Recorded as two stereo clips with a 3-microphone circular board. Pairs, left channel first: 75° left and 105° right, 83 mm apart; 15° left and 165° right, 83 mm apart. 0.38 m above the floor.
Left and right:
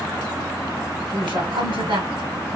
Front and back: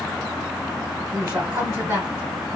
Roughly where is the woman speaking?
Right.